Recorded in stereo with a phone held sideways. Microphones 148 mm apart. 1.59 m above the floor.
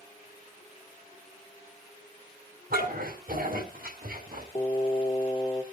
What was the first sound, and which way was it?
A dog barking, 80° right.